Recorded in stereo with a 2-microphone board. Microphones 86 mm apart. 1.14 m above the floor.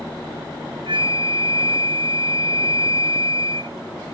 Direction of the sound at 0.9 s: 80° right.